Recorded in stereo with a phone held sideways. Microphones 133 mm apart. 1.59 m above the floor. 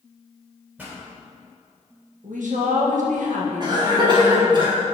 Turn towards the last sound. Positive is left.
turn(degrees=-35)  # may be behind; listen again after turning